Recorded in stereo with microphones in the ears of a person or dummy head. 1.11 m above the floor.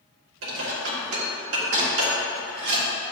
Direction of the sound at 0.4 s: 80° right.